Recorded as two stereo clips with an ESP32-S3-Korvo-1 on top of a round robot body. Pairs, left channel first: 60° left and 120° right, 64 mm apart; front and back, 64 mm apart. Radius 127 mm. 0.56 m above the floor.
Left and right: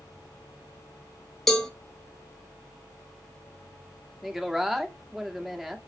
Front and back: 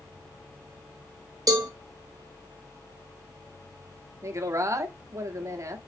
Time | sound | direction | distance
1.5 | a cowbell | 150° left | 1.0 m
4.2 | a woman speaking | 155° left | 1.5 m